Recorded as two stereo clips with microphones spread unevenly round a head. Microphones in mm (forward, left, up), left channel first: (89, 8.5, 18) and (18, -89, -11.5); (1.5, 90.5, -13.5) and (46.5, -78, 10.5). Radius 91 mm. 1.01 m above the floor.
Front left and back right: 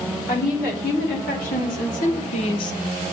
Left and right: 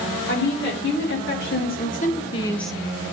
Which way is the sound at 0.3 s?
90° left.